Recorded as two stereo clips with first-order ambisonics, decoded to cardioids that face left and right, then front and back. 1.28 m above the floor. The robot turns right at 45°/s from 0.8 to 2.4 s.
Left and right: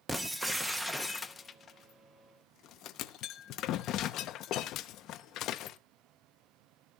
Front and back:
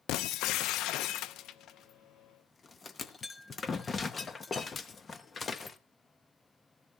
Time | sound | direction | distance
0.1 | breaking glass | 5° right | 0.7 m